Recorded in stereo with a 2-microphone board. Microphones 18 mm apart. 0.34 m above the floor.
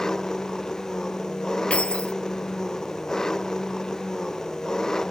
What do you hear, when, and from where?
0.0 s an engine running: 25° left (ahead or behind)
1.7 s keys jangling: 80° left